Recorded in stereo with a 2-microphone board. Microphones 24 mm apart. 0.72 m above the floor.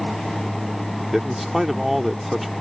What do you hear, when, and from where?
1.1 s a man speaking: 5° right (ahead or behind)